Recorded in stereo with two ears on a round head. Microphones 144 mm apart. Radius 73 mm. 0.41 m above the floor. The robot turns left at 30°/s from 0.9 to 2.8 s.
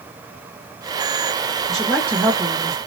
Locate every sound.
1.7 s a woman speaking: straight ahead, 1.6 m; by 2.8 s 35° right, 1.6 m